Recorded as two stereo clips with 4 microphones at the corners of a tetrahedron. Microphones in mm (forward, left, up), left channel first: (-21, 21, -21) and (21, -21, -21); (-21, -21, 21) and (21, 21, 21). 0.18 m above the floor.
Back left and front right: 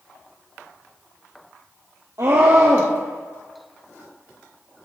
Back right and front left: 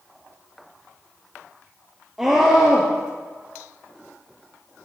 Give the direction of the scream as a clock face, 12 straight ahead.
1 o'clock.